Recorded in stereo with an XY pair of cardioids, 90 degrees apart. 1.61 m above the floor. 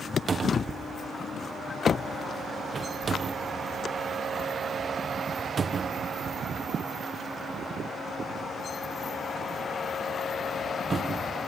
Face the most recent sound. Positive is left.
turn(degrees=-40)